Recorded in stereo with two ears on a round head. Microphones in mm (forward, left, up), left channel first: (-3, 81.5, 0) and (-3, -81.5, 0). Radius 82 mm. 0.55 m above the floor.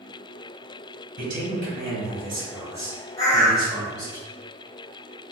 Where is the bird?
20° left (ahead or behind), 0.9 m.